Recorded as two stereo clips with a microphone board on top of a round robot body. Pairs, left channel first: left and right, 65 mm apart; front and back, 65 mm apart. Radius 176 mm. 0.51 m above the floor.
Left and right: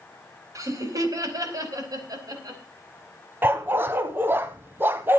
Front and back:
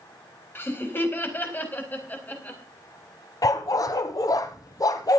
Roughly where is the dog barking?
Ahead right.